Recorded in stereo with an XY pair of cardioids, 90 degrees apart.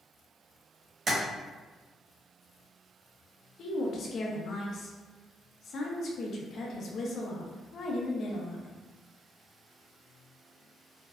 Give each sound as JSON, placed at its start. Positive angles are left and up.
{"t": 1.1, "sound": "tapping", "azimuth_deg": -40, "distance_m": 0.9}
{"t": 3.6, "sound": "a woman speaking", "azimuth_deg": 60, "distance_m": 0.5}